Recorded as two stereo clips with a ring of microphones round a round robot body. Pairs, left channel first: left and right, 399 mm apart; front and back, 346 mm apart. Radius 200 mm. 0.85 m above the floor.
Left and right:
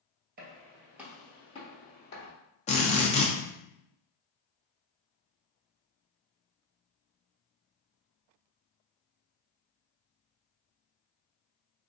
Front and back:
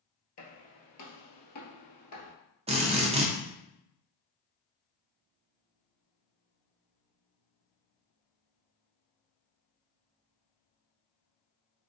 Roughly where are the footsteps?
Ahead right.